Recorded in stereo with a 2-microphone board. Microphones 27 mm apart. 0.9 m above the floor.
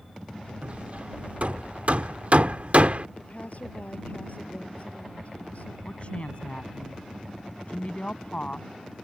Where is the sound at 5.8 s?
40° left (ahead or behind).